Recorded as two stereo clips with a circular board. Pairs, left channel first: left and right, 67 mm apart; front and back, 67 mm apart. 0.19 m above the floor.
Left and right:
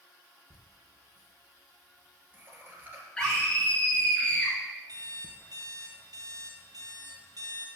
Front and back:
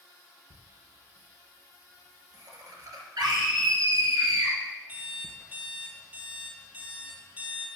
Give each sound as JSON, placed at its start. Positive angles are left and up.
{"t": 0.5, "sound": "laughter", "azimuth_deg": -150, "distance_m": 3.5}
{"t": 3.2, "sound": "a scream", "azimuth_deg": 165, "distance_m": 3.0}
{"t": 4.9, "sound": "an alarm clock", "azimuth_deg": -115, "distance_m": 2.0}